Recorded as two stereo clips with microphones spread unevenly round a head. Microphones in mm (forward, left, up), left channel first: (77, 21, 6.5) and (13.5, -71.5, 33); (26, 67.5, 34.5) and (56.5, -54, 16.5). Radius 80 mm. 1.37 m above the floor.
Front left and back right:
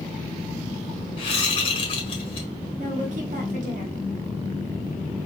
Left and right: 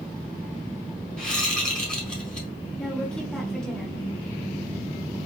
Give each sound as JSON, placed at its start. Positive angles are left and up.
{"t": 1.2, "sound": "a whoosh", "azimuth_deg": 20, "distance_m": 1.7}
{"t": 2.8, "sound": "a woman speaking", "azimuth_deg": -170, "distance_m": 1.0}